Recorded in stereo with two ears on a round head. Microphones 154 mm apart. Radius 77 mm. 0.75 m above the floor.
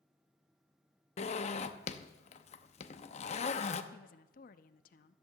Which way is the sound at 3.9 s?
50° left (ahead or behind).